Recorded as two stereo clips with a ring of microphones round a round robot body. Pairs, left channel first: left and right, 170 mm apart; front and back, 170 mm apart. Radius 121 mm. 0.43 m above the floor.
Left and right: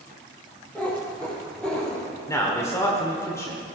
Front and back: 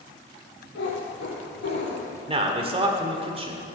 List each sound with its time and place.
0.8 s a cat meowing: 10° left, 4.5 m; by 2.2 s 5° left, 5.5 m
2.3 s a man speaking: 155° left, 1.6 m